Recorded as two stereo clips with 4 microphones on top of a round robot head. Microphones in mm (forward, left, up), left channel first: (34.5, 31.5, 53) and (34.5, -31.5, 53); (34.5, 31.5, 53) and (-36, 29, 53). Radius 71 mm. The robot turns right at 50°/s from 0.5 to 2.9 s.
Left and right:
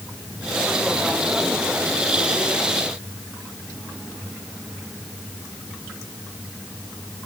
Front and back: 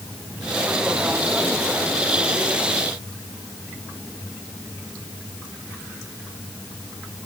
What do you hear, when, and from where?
Only background noise.